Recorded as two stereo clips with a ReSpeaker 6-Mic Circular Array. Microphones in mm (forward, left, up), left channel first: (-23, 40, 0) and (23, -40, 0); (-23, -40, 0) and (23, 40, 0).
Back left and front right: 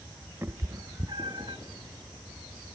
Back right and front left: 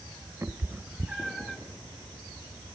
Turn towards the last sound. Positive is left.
turn(degrees=-35)